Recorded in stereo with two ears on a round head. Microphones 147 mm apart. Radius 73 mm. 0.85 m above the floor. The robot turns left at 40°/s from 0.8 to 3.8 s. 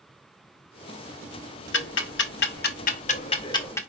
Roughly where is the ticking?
Left.